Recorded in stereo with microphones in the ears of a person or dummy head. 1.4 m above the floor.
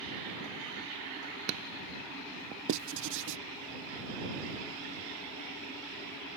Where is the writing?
60° right (ahead or behind).